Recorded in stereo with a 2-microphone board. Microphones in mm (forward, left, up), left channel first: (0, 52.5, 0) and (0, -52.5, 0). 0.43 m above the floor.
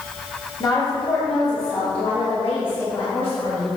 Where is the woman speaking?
35° left (ahead or behind), 1.6 m; by 3.7 s 65° left (ahead or behind), 4 m.